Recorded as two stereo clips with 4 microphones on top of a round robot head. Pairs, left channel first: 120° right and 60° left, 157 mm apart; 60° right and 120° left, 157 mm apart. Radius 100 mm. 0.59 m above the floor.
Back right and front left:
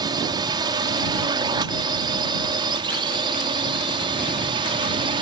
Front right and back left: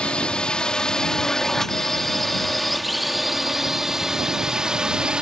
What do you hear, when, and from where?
0.0 s a drone: 20° left; by 5.2 s 45° left